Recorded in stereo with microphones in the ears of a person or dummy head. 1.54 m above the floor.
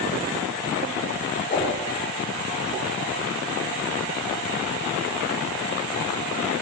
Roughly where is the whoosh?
Left.